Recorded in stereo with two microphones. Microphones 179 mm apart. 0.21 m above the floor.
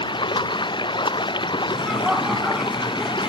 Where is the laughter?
Centre (ahead or behind).